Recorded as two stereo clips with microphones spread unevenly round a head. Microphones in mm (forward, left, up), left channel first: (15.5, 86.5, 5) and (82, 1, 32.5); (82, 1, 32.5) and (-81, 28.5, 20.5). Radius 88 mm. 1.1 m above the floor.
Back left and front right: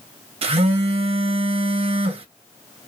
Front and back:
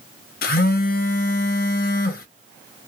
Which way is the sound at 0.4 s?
45° right.